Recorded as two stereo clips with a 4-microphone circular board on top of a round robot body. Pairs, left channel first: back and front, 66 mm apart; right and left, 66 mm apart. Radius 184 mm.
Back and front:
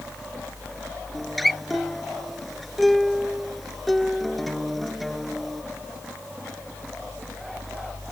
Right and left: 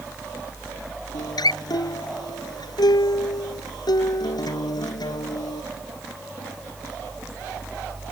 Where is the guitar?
90° right.